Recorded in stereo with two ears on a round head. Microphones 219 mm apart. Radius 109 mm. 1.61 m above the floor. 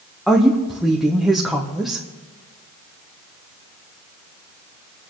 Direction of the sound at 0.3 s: Centre (ahead or behind).